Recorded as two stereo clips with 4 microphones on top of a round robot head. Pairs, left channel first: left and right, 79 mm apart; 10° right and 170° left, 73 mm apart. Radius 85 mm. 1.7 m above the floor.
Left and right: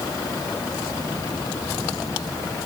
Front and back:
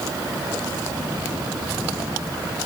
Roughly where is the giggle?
No giggle in this recording.